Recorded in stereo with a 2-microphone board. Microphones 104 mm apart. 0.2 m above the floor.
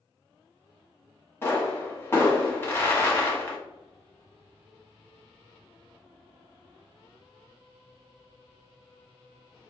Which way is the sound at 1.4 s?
25° left (ahead or behind).